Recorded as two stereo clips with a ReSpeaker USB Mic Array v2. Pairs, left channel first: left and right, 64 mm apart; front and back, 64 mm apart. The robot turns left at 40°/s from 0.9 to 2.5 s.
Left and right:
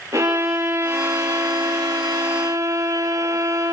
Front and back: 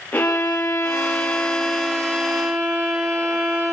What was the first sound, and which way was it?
A violin, 60° right.